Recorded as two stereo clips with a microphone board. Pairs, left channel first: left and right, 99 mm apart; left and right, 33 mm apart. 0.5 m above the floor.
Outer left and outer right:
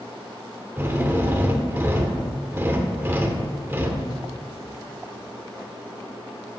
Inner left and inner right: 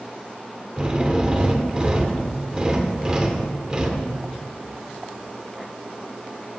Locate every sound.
0.8 s a drill: 20° right (ahead or behind), 1.6 m